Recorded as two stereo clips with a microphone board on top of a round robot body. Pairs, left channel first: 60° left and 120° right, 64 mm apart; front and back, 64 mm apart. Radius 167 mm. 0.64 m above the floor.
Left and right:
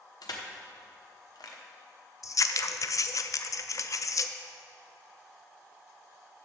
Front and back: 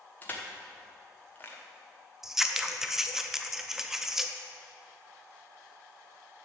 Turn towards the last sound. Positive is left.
turn(degrees=95)